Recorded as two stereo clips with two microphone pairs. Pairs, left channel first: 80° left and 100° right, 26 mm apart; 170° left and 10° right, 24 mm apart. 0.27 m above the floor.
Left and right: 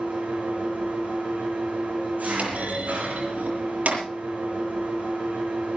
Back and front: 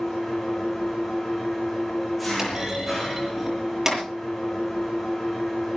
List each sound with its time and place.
0.0 s an engine running: 105° right, 8 m
2.4 s a clunk: 85° right, 7.5 m